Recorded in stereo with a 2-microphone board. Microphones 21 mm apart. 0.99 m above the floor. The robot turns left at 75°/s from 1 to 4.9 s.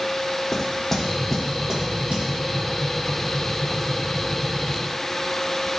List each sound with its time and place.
0.5 s knocking: 10° left (ahead or behind), 1.5 m; by 2.3 s 85° right, 1.5 m